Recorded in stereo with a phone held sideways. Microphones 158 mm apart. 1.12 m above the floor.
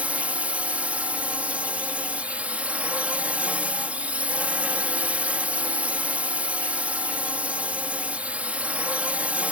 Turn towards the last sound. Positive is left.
turn(degrees=-10)  # may be behind; listen again after turning